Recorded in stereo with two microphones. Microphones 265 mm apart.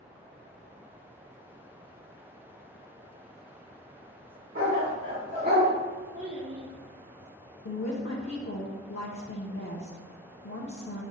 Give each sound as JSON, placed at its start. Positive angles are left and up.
{"t": 4.5, "sound": "a dog barking", "side_deg": -55, "distance_m": 1.4}
{"t": 6.1, "sound": "a child speaking", "side_deg": -25, "distance_m": 0.7}
{"t": 7.7, "sound": "a woman speaking", "side_deg": 55, "distance_m": 0.5}